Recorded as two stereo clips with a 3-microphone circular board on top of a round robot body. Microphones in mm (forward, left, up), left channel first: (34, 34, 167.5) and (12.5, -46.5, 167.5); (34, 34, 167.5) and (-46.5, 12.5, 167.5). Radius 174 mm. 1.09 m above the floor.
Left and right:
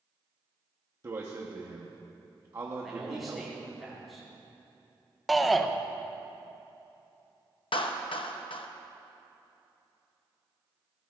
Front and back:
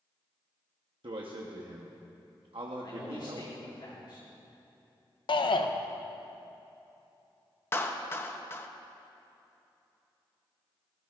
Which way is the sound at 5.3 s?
15° right.